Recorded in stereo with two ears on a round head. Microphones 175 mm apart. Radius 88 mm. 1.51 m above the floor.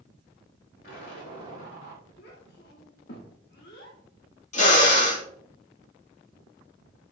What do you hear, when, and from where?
0.8 s an explosion: 65° left (ahead or behind), 4.5 m
2.2 s a child speaking: 60° left (ahead or behind), 1.6 m
4.5 s a drill: 40° left (ahead or behind), 2.5 m